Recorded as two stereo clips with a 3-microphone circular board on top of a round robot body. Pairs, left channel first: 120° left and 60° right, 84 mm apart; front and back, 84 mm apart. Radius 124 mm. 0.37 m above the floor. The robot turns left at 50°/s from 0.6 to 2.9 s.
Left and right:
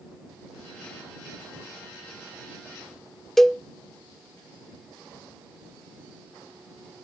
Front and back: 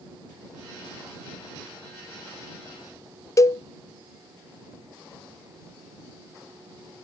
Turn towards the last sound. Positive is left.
turn(degrees=35)